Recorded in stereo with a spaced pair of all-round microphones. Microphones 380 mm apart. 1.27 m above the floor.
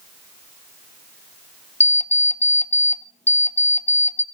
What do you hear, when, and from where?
1.8 s an alarm clock: 20° left (ahead or behind), 0.7 m